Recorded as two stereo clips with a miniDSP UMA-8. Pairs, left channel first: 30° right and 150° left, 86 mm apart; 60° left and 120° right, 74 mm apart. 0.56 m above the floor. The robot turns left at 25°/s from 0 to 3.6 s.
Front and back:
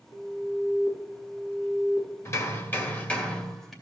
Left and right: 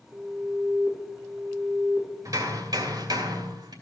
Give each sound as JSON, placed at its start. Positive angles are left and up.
{"t": 0.1, "sound": "an alarm", "azimuth_deg": 35, "distance_m": 3.5}
{"t": 2.2, "sound": "hammering", "azimuth_deg": -85, "distance_m": 2.5}